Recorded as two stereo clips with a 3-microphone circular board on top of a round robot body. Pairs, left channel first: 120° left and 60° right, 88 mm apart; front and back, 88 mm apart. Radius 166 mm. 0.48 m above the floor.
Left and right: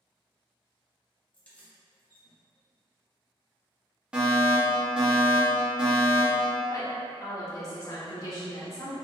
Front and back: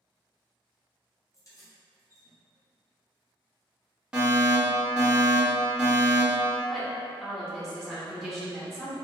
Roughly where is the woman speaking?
Left.